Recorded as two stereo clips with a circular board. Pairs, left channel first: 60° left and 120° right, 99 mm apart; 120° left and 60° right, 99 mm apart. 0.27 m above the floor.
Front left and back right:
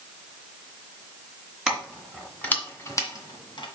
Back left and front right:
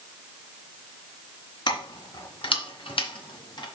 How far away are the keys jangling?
About 2 m.